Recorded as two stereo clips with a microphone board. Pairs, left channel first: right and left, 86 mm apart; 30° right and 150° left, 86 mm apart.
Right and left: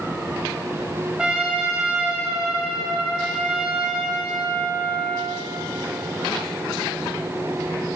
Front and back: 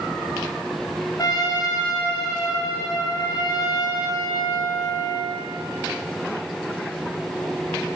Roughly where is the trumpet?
Ahead.